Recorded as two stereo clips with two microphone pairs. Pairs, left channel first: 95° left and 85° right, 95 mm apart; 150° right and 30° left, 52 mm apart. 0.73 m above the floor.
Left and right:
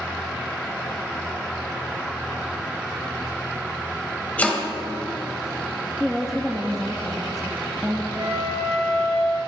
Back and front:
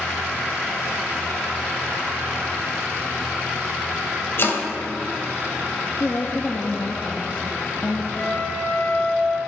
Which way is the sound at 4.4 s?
170° left.